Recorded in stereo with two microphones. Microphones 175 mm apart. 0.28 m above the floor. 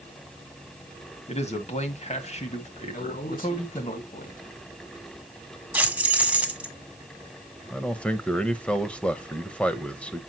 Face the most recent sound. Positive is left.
turn(degrees=5)  # may be behind; listen again after turning